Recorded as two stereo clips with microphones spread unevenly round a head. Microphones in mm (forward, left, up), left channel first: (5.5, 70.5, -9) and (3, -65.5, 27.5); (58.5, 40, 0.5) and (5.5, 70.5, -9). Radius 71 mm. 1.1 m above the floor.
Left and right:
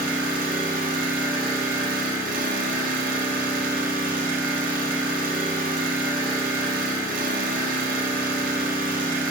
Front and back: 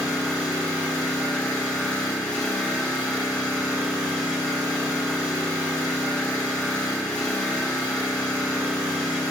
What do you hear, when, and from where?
0.0 s an engine running: 105° right, 1.0 m